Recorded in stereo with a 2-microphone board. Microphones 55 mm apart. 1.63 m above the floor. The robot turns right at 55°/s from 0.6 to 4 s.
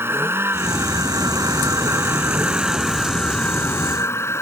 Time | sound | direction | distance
0.0 | a vehicle | 130° right | ?